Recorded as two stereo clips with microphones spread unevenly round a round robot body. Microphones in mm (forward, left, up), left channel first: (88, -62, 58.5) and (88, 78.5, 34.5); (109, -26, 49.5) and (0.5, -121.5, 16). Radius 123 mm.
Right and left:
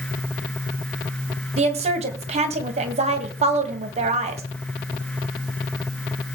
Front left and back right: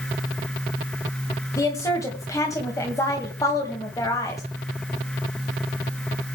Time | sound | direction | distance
1.6 | a woman speaking | 120° left | 2 m